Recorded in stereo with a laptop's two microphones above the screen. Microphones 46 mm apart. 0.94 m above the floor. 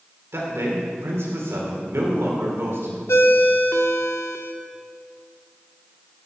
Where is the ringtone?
75° left (ahead or behind), 1.0 m.